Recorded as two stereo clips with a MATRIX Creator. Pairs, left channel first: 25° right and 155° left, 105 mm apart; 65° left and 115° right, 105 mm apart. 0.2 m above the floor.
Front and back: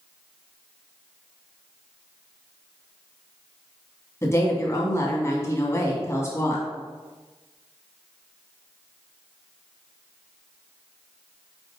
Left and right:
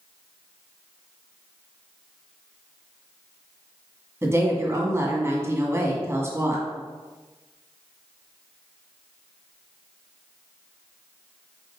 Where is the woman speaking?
65° right, 1.9 m.